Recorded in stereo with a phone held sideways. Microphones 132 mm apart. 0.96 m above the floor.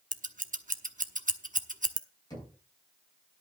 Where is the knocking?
30° left (ahead or behind), 7.5 m.